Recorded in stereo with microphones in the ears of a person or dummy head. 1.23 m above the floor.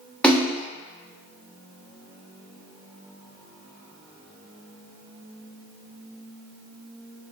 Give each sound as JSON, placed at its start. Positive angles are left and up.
{"t": 0.2, "sound": "a splash", "side_deg": 10, "distance_m": 0.9}